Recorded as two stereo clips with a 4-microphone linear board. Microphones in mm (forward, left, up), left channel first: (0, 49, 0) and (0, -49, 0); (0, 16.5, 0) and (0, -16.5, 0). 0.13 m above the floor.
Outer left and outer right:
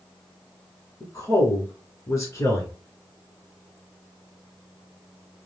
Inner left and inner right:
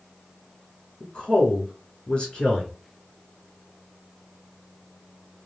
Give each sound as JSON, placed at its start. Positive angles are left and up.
{"t": 1.0, "sound": "a woman speaking", "side_deg": 35, "distance_m": 1.5}